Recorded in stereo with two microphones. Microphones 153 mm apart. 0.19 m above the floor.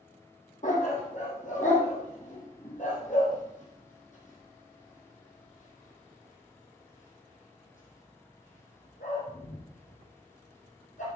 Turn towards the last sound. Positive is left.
turn(degrees=55)  # may be behind; listen again after turning